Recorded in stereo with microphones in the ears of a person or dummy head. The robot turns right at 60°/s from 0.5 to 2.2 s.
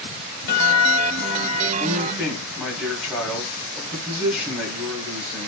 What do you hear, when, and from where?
0.5 s a guitar: 65° left, 2 m; by 1.7 s 140° left, 2 m
1.8 s a man speaking: 30° left (ahead or behind), 2 m; by 5.5 s 5° left (ahead or behind), 2 m